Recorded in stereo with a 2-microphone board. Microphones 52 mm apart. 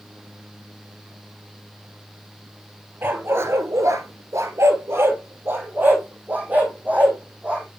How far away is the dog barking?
About 1.2 m.